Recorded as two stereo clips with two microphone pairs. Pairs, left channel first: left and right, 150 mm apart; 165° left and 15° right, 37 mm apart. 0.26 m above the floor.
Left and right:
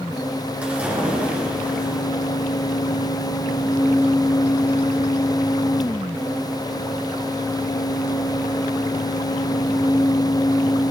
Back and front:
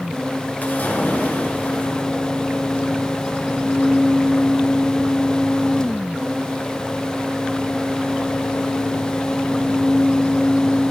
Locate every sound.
0.6 s a splash: 170° right, 4.5 m